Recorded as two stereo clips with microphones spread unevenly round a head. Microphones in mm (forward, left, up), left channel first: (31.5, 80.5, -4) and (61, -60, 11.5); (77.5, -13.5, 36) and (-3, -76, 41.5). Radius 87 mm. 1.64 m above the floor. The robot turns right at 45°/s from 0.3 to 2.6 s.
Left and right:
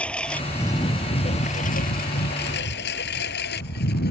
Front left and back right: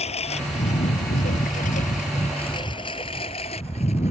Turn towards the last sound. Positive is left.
turn(degrees=90)